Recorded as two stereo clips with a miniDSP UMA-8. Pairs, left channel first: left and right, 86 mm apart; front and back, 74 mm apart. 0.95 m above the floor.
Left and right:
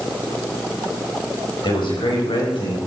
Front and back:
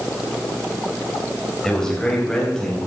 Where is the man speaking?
85° left, 5 m; by 2.8 s 80° left, 6.5 m.